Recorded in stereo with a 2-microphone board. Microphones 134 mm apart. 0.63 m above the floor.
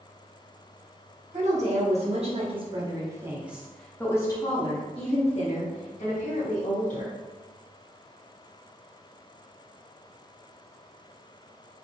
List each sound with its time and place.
1.3 s a woman speaking: 60° right (ahead or behind), 1.4 m; by 7.1 s 70° left (ahead or behind), 1.9 m